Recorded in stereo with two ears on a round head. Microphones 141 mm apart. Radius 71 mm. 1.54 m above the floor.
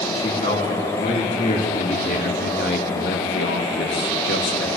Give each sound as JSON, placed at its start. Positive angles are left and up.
{"t": 0.1, "sound": "a man speaking", "side_deg": 40, "distance_m": 5.5}